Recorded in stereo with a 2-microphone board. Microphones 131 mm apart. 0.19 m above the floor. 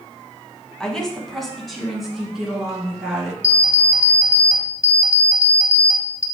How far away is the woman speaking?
About 1.2 m.